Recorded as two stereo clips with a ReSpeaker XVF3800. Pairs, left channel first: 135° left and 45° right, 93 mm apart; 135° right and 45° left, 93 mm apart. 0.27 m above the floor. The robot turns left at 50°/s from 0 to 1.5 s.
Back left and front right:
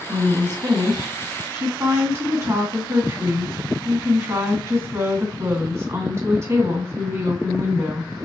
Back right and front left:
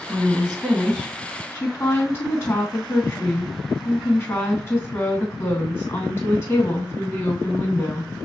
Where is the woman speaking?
10° right, 2 m; by 8.1 s 80° right, 2 m.